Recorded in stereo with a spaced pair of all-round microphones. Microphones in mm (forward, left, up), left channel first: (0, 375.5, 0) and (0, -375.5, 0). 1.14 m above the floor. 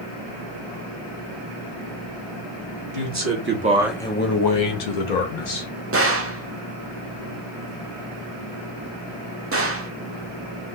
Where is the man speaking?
25° right (ahead or behind), 1.2 m; by 5.7 s 85° left, 0.9 m.